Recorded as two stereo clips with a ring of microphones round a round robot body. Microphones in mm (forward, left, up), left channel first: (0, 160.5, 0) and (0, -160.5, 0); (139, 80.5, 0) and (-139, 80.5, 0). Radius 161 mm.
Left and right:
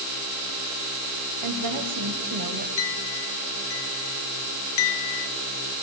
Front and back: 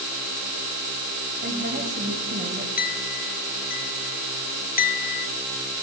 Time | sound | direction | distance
1.4 | a woman speaking | 120° right | 3 m
2.8 | a clink | 55° left | 1.0 m